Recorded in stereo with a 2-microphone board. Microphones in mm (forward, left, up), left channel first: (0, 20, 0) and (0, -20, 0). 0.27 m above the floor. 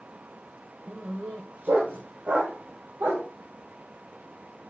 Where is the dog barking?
80° right, 1.7 m.